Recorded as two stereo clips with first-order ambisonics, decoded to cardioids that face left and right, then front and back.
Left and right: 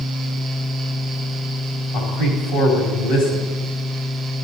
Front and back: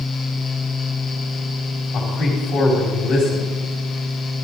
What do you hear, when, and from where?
1.9 s a man speaking: 55° left, 4.5 m